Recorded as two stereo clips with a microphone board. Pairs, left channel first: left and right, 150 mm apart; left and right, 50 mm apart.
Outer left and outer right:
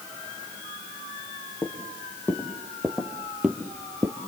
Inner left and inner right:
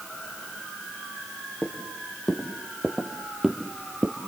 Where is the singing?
No singing in this recording.